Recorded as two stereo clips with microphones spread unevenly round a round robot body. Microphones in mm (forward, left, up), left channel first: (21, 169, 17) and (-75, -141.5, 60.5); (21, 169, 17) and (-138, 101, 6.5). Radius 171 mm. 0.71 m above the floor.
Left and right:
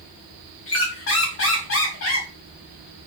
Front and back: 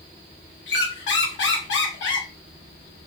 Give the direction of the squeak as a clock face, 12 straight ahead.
11 o'clock.